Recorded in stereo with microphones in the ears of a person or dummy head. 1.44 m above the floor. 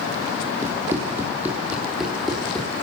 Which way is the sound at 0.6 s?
15° right (ahead or behind).